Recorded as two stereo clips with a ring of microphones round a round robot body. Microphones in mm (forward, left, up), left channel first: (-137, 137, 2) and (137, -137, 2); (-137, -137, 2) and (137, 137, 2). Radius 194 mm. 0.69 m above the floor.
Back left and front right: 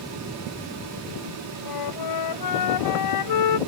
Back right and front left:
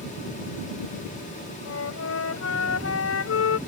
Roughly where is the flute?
Behind.